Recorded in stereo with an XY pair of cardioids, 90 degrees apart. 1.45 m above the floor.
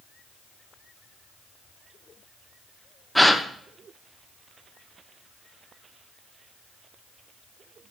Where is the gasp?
5° left, 0.8 m.